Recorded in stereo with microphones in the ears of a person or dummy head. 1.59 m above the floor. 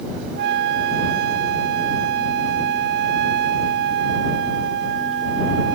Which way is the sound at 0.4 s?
60° right (ahead or behind).